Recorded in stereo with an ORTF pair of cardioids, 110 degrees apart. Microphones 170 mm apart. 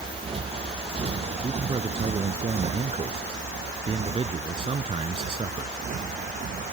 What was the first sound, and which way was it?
A motorcycle, 30° right.